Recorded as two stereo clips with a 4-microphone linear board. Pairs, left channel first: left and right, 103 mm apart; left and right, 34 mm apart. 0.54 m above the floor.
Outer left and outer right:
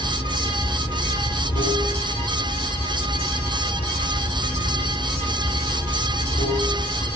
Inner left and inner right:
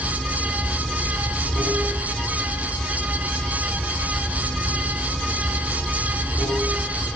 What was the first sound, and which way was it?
Running water, 80° left.